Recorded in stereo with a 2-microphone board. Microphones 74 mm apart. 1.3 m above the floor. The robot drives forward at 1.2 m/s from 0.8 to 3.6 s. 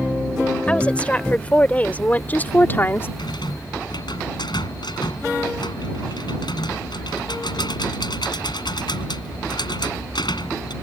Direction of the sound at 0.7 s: 15° left (ahead or behind).